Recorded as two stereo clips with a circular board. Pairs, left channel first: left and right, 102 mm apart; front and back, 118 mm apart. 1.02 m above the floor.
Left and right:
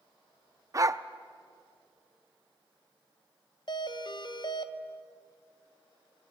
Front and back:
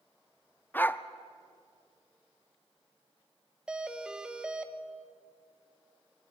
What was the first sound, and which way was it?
A dog barking, 60° right.